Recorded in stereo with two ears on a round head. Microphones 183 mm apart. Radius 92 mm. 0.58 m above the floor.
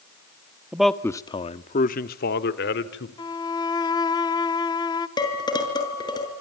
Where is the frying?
I don't hear frying.